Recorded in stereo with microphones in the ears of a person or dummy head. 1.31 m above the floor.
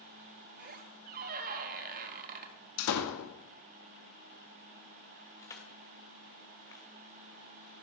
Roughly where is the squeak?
Right.